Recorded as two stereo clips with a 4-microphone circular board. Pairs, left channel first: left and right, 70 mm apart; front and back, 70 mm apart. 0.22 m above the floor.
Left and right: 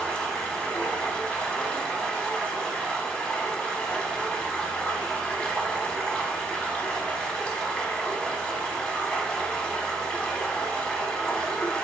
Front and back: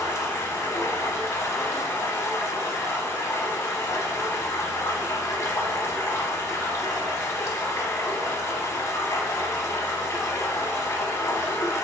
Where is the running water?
20° left, 0.8 m.